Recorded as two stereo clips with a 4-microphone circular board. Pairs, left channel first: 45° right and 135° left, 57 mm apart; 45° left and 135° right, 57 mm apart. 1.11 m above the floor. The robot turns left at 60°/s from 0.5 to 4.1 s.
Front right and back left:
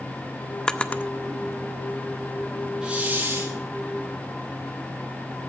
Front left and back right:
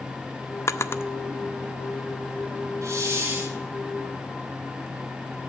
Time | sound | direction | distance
0.7 | a drawer | 30° left | 0.5 m
2.8 | a hiss | 150° right | 3 m